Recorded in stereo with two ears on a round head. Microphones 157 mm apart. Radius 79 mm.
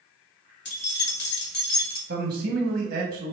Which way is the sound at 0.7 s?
65° left (ahead or behind).